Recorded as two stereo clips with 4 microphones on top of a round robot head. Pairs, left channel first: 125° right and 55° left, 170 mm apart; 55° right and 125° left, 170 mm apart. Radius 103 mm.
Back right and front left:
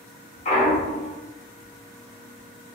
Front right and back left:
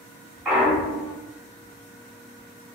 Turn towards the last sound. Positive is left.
turn(degrees=-160)